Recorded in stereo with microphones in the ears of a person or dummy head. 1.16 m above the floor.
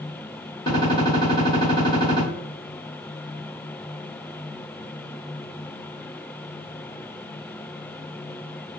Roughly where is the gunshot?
Centre.